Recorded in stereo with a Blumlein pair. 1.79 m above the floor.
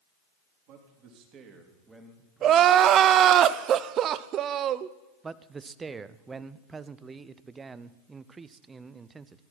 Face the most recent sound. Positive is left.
turn(degrees=-15)